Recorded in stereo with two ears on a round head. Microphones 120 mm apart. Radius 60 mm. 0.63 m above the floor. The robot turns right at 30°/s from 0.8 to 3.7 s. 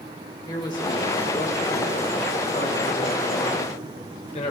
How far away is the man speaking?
About 2.5 m.